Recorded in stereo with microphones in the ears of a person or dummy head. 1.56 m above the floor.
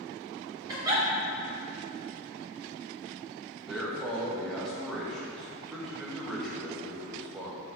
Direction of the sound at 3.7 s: Centre (ahead or behind).